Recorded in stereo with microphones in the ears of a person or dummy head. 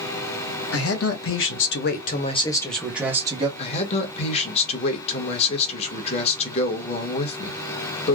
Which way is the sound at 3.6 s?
40° left (ahead or behind).